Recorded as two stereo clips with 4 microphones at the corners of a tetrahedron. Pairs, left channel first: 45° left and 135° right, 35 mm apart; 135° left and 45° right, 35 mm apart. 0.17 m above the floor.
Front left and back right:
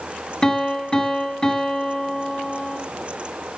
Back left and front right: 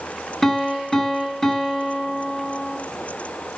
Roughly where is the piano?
Left.